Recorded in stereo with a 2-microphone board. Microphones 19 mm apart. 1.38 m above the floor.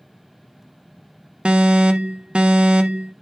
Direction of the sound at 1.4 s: 60° right (ahead or behind).